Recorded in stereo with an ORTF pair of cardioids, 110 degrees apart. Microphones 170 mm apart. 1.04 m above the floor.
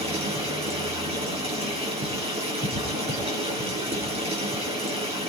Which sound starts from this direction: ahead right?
Running water, at 0.0 s.